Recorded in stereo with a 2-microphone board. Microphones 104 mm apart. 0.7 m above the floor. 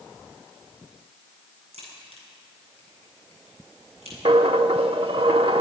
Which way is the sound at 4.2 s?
60° right (ahead or behind).